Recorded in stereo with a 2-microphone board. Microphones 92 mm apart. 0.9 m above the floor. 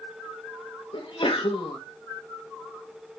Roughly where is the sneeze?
Left.